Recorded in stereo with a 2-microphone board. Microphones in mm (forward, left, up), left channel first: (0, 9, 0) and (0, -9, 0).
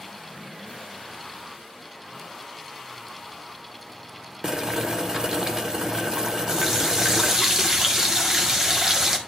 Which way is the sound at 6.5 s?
25° right (ahead or behind).